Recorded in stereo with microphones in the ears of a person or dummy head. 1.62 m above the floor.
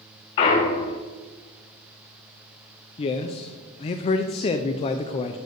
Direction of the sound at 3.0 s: 30° left (ahead or behind).